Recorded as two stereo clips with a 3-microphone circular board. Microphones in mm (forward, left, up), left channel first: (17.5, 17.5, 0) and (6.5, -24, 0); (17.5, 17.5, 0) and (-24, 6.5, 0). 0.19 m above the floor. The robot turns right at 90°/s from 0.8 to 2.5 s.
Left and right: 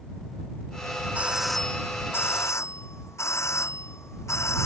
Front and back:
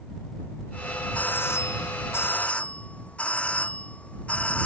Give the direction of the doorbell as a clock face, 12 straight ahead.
2 o'clock.